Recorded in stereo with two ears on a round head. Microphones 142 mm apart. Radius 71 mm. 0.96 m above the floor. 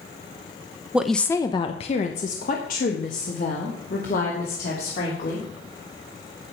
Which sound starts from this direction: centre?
A woman speaking, at 0.9 s.